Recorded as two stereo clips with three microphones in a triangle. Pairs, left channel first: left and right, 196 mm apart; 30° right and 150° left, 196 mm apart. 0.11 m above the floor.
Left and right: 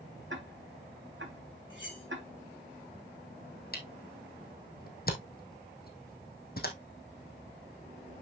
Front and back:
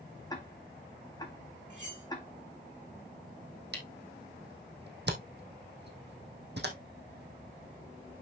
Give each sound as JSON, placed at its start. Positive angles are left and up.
{"t": 0.3, "sound": "ticking", "azimuth_deg": -100, "distance_m": 2.0}
{"t": 1.7, "sound": "cutlery clinking", "azimuth_deg": 100, "distance_m": 5.0}
{"t": 3.7, "sound": "a camera shutter", "azimuth_deg": 125, "distance_m": 2.5}